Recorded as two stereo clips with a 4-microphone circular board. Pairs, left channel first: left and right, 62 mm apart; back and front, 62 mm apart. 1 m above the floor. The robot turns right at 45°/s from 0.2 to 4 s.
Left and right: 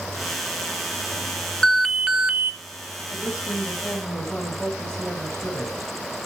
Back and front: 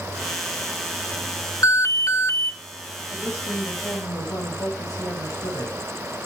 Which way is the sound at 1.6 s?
170° left.